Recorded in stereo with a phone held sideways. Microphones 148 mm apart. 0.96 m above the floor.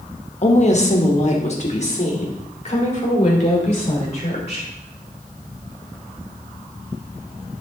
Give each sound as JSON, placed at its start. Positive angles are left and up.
{"t": 0.4, "sound": "a woman speaking", "side_deg": 45, "distance_m": 0.9}